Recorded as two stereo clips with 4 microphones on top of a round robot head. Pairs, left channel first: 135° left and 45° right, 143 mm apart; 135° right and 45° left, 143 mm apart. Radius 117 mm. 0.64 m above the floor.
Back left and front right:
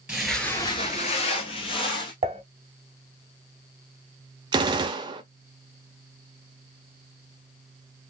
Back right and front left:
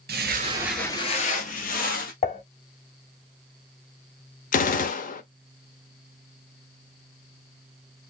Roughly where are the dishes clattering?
Right.